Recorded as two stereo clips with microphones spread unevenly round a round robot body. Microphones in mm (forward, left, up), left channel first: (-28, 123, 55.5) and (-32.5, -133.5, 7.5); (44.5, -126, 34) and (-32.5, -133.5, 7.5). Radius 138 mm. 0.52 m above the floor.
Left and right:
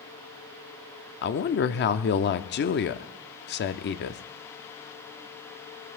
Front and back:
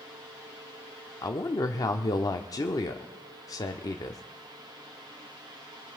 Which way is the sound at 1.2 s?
50° left.